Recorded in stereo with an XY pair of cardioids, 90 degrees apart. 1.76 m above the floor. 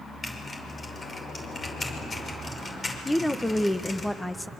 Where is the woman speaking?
5° left, 1.4 m.